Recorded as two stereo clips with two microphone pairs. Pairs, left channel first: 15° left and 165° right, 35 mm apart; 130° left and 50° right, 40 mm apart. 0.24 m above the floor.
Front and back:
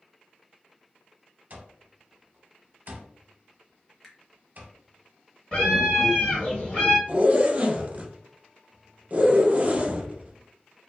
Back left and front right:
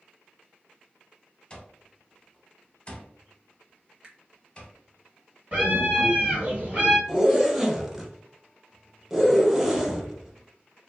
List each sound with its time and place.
1.5 s an alarm clock: 175° right, 0.6 m
4.0 s a finger snap: 55° right, 0.8 m
5.5 s a scream: 30° right, 1.9 m
7.1 s a zipper: 130° right, 0.6 m